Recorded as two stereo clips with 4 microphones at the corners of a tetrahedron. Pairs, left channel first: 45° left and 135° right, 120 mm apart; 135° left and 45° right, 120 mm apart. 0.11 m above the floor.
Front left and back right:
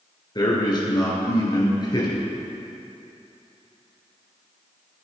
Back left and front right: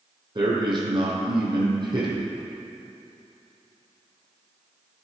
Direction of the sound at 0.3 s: 5° right.